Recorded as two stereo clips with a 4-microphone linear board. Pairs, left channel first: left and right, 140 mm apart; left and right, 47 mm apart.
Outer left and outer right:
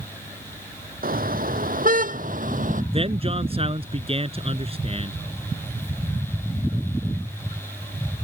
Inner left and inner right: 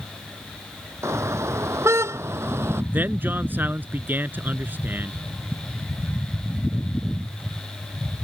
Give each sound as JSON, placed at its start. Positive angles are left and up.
{"t": 1.0, "sound": "a car horn", "side_deg": -75}
{"t": 2.9, "sound": "a man speaking", "side_deg": -40}